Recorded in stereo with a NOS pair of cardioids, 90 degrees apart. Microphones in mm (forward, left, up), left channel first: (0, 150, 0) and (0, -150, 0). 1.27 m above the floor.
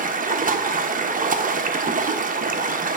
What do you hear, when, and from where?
0.0 s running water: 30° right, 0.9 m